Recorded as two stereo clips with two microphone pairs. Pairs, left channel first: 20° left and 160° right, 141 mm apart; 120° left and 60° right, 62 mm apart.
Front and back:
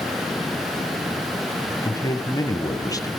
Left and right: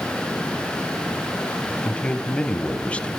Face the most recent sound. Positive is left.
turn(degrees=60)